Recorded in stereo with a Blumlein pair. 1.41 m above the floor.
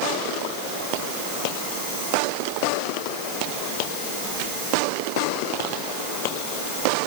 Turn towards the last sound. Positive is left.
No sound to turn to.